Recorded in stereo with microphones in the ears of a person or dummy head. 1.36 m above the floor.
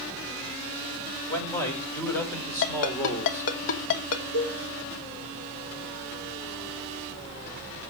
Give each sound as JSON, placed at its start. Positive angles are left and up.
{"t": 1.3, "sound": "a man speaking", "side_deg": 15, "distance_m": 7.0}
{"t": 2.6, "sound": "a ringtone", "side_deg": 75, "distance_m": 2.5}
{"t": 4.3, "sound": "a cowbell", "side_deg": 60, "distance_m": 10.0}